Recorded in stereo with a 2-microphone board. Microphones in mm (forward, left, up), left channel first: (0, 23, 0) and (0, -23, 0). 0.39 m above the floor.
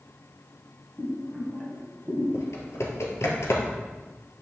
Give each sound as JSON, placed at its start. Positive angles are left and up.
{"t": 1.0, "sound": "boiling", "side_deg": 10, "distance_m": 3.0}
{"t": 2.3, "sound": "typing on a keyboard", "side_deg": 75, "distance_m": 1.8}